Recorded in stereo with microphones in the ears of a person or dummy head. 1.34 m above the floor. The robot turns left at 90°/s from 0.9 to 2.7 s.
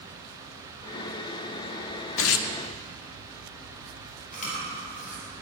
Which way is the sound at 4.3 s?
40° left (ahead or behind).